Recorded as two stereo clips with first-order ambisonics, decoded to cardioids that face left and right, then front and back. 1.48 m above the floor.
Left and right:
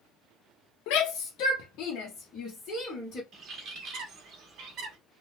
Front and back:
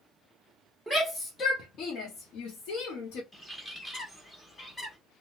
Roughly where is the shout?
Left.